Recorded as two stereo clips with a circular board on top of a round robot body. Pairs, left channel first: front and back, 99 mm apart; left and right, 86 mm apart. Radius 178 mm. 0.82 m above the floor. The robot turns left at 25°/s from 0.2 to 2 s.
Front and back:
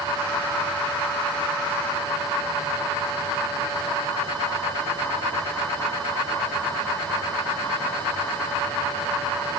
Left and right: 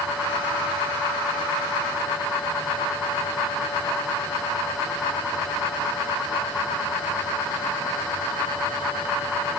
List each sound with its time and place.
Only background noise.